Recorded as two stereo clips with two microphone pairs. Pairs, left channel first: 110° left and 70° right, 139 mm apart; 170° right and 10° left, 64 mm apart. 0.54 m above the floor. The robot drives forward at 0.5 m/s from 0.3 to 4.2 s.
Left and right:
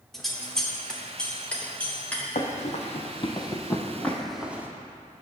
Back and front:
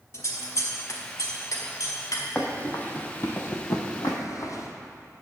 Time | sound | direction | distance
0.1 | scissors | 165° right | 1.1 m
2.4 | running footsteps | 120° left | 1.2 m